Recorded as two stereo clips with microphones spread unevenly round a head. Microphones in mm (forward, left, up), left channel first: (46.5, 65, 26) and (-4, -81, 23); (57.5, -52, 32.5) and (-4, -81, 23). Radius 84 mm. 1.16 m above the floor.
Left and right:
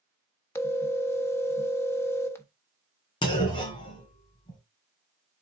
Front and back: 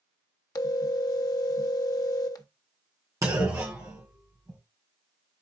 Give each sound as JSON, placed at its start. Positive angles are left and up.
{"t": 0.6, "sound": "a phone ringing", "azimuth_deg": -5, "distance_m": 1.2}
{"t": 3.2, "sound": "a clunk", "azimuth_deg": 130, "distance_m": 2.0}